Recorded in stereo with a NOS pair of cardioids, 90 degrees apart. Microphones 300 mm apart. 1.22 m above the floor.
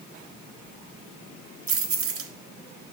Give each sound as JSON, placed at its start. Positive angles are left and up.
{"t": 1.7, "sound": "keys jangling", "azimuth_deg": -50, "distance_m": 1.2}